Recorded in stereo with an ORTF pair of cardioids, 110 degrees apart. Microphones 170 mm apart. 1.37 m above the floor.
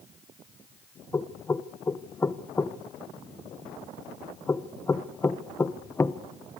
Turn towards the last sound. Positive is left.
turn(degrees=15)